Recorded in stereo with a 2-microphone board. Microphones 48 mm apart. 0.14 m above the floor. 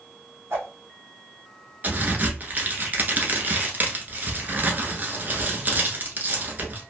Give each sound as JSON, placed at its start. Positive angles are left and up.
{"t": 0.5, "sound": "a whoosh", "side_deg": -55, "distance_m": 1.1}
{"t": 1.8, "sound": "a crack", "side_deg": -35, "distance_m": 0.9}